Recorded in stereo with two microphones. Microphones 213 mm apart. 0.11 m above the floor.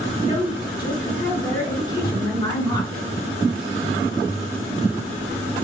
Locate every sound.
0.2 s a woman speaking: 20° left (ahead or behind), 1.4 m